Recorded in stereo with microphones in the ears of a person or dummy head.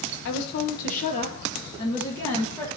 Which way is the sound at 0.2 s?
60° left (ahead or behind).